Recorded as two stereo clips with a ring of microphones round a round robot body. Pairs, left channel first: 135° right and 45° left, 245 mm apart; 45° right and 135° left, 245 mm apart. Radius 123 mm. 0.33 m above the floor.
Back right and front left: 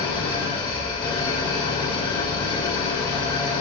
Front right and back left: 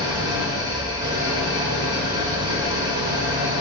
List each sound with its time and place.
0.0 s an engine running: 175° right, 0.8 m